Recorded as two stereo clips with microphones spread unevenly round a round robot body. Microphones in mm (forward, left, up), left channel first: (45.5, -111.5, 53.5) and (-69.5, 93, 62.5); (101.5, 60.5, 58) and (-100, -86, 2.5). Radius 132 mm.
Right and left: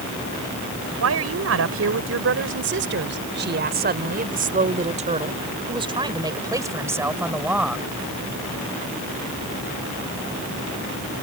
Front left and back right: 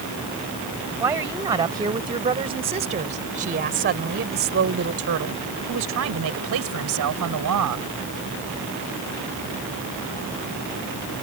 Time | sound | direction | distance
1.0 | a woman speaking | 140° left | ?